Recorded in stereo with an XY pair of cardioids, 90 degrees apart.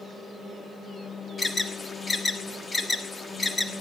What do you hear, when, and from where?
1.4 s an alarm: 25° left, 1.6 m